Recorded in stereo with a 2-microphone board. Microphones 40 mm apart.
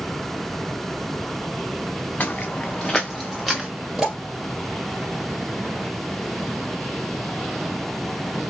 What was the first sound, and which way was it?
Footsteps, 45° left (ahead or behind).